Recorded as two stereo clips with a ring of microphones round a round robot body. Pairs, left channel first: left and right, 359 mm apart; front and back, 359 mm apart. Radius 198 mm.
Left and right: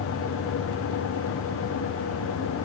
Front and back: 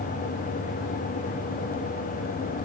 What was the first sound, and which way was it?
Only background noise.